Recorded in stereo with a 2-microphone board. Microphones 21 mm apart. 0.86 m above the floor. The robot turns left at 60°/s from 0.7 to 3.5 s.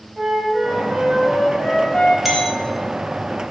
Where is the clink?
10° right (ahead or behind), 1.5 m; by 2.6 s 10° left (ahead or behind), 1.5 m.